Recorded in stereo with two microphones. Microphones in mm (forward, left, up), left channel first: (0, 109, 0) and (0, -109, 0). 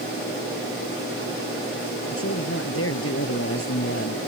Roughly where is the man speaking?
Left.